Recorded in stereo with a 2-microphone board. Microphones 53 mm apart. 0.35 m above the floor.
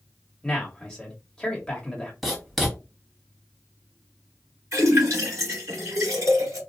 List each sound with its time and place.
0.4 s a man speaking: 10° left (ahead or behind), 1.3 m
2.2 s writing: centre (ahead or behind), 1.4 m
4.7 s a splash: 65° right (ahead or behind), 2 m